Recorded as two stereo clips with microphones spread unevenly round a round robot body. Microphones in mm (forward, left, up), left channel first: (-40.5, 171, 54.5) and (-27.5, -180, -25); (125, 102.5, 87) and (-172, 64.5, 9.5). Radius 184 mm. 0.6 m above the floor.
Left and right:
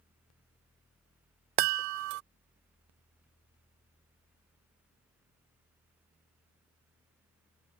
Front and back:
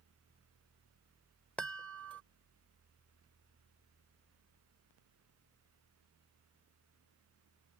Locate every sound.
1.6 s a chime: 80° right